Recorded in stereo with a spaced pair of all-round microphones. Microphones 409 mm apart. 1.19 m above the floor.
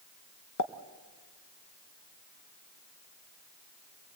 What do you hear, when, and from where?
0.6 s a pop: 45° left (ahead or behind), 0.9 m